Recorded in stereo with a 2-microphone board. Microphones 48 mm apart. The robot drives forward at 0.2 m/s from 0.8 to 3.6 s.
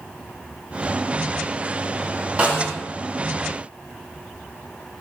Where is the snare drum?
30° right (ahead or behind), 1.1 m.